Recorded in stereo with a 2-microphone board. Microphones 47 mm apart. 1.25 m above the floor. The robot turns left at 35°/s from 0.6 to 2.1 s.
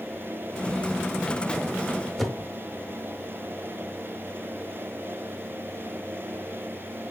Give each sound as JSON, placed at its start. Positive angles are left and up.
{"t": 2.2, "sound": "a whoosh", "side_deg": 5, "distance_m": 1.0}